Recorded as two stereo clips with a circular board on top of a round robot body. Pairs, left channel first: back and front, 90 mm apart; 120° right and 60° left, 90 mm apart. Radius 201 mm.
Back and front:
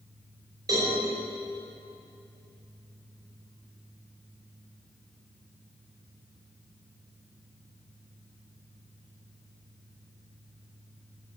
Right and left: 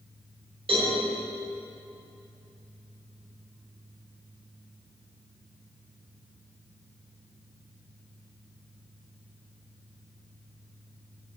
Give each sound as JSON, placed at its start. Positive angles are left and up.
{"t": 0.7, "sound": "a cowbell", "azimuth_deg": 50, "distance_m": 6.0}